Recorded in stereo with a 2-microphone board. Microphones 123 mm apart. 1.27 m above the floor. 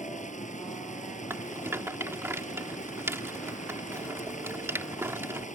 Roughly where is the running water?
Left.